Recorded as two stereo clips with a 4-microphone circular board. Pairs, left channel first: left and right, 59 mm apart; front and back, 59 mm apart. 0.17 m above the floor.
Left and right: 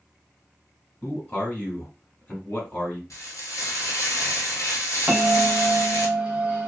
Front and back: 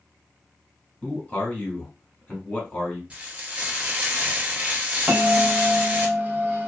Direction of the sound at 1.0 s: 50° left.